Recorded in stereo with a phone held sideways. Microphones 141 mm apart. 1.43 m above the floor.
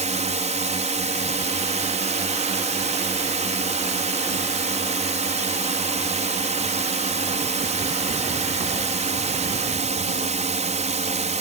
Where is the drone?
55° right (ahead or behind).